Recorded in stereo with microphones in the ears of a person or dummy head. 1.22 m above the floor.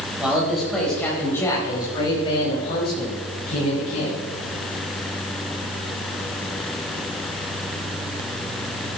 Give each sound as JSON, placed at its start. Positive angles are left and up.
{"t": 0.2, "sound": "a man speaking", "side_deg": 0, "distance_m": 5.5}